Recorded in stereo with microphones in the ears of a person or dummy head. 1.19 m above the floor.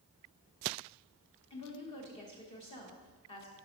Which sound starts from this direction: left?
A woman speaking, at 1.5 s.